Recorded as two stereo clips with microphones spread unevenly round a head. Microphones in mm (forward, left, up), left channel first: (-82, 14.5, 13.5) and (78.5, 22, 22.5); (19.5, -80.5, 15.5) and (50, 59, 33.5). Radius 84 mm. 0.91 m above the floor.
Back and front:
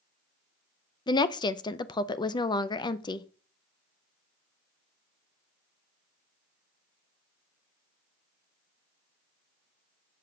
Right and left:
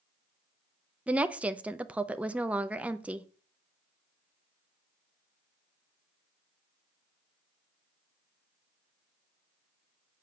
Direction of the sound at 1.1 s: 165° left.